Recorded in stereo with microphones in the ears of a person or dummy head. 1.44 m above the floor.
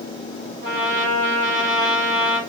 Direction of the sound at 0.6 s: 30° right (ahead or behind).